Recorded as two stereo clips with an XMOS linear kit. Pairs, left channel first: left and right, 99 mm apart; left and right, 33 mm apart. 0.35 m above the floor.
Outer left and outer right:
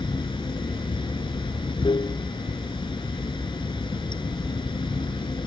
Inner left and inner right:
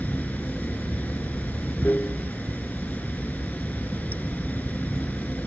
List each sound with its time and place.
0.0 s running water: 60° left (ahead or behind)